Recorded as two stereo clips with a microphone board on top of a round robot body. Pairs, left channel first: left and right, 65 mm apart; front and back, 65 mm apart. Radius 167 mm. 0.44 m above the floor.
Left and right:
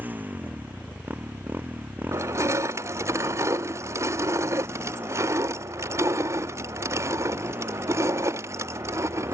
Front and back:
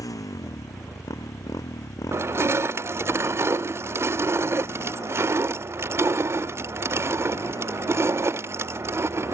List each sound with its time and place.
0.0 s a motorcycle: 25° right
2.1 s crushing: 130° right